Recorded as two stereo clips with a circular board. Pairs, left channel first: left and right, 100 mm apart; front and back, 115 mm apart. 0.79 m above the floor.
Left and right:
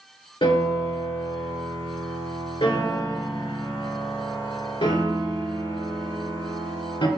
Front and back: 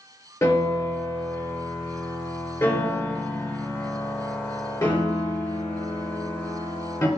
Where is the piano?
55° left, 2.5 m.